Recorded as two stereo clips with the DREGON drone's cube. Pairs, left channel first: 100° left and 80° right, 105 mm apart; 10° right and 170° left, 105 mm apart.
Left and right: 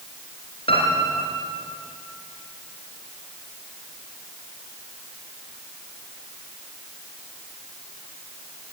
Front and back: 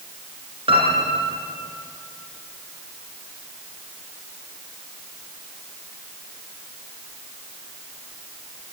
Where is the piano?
130° left, 5 m.